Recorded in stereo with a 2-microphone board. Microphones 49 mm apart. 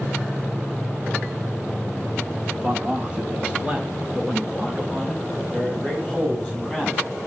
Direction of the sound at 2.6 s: 30° right (ahead or behind).